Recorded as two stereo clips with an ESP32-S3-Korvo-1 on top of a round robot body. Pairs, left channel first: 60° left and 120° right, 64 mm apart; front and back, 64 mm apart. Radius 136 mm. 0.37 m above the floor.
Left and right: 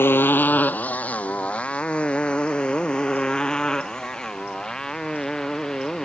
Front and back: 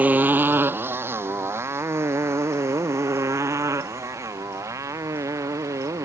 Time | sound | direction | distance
0.0 | a motorcycle | 115° left | ?